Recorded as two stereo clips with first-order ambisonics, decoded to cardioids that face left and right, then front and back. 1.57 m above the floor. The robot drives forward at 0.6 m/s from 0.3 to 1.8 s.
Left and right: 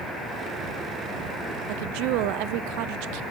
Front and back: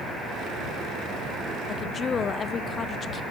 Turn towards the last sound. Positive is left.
turn(degrees=-70)